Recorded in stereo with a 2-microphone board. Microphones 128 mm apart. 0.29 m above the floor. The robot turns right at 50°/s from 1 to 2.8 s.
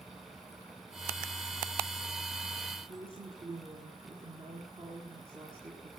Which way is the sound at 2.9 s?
50° right (ahead or behind).